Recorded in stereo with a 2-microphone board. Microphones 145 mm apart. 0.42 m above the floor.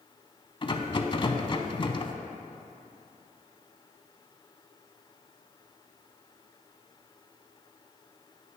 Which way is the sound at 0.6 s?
35° left (ahead or behind).